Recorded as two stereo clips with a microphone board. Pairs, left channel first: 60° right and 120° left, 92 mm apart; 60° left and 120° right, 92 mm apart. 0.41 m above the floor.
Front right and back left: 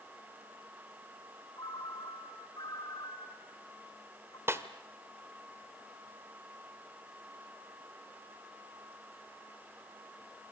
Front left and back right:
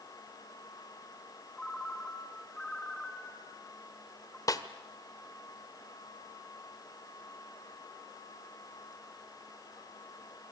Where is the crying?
I don't hear crying.